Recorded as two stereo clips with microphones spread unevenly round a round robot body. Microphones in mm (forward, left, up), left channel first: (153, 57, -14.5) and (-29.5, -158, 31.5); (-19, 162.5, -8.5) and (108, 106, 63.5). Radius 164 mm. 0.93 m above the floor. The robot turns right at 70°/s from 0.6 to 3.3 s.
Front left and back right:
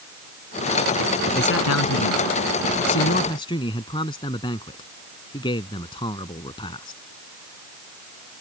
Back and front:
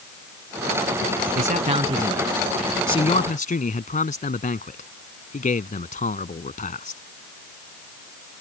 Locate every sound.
1.4 s a man speaking: 10° right; by 7.0 s 125° left